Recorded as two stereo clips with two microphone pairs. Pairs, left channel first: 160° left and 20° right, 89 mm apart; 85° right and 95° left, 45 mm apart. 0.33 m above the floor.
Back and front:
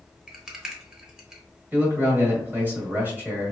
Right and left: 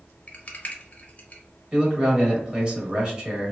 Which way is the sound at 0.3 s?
95° right.